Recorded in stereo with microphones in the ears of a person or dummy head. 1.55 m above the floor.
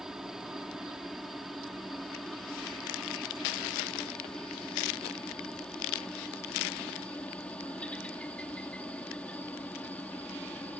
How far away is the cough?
No cough in this recording.